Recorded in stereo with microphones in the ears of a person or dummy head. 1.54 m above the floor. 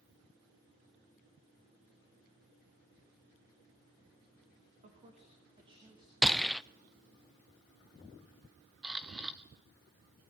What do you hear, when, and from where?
4.8 s a man speaking: 35° right (ahead or behind), 3 m; by 6.1 s 20° right (ahead or behind), 4.5 m
6.2 s a gunshot: centre (ahead or behind), 0.5 m
8.8 s a camera shutter: centre (ahead or behind), 0.9 m